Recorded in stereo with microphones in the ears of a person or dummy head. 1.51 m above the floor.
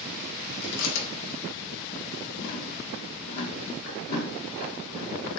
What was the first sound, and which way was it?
Chewing, 85° left.